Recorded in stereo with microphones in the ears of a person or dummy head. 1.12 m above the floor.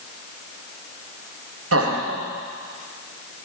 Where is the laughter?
75° right (ahead or behind), 1.7 m.